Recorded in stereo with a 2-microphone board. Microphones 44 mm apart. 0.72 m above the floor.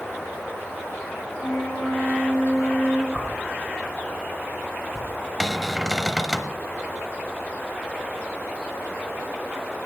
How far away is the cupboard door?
About 1.0 m.